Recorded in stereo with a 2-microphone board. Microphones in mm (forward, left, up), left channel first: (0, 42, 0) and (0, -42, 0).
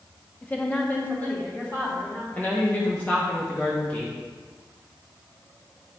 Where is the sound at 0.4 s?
20° left (ahead or behind), 1.0 m.